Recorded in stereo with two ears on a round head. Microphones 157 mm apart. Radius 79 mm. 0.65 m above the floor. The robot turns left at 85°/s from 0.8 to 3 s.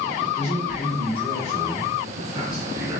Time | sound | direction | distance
0.3 | a man speaking | 95° left | 1.3 m